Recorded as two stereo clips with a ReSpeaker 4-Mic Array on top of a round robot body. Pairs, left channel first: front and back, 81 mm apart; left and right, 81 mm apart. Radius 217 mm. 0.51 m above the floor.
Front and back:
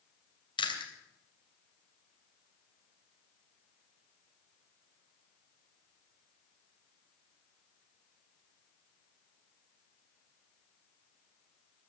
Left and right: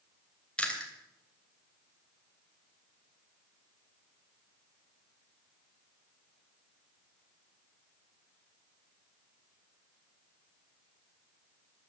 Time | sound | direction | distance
0.6 | chewing | 15° left | 3 m